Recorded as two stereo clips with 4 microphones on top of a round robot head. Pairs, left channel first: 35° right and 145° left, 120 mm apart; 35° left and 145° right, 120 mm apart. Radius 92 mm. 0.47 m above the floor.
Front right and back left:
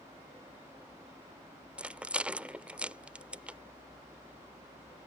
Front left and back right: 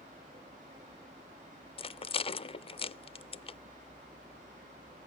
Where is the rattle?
65° left.